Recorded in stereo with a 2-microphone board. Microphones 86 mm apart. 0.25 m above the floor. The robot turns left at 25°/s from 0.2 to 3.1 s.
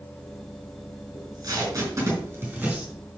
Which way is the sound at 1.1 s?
50° right (ahead or behind).